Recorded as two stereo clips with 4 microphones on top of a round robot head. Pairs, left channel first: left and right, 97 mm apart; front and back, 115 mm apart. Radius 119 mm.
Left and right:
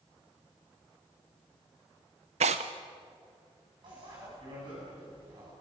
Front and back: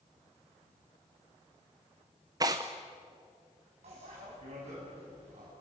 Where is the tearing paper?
110° right, 0.7 m.